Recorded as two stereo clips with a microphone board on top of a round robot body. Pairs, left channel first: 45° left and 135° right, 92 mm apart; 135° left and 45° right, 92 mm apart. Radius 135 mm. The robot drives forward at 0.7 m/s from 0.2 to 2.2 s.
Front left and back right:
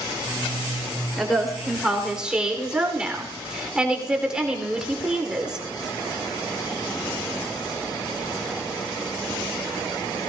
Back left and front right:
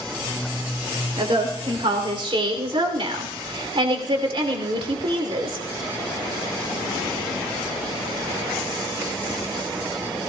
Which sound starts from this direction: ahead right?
A woman speaking, at 1.2 s.